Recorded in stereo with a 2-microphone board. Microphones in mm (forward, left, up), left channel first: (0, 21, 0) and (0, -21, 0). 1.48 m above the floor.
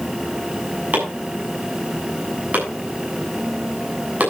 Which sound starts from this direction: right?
Chopping, at 0.9 s.